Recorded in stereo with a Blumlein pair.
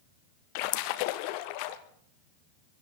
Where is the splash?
45° left, 1.0 m.